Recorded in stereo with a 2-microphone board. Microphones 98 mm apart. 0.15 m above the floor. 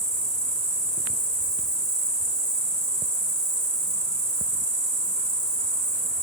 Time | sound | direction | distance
0.0 | an insect | 5° left (ahead or behind) | 0.7 m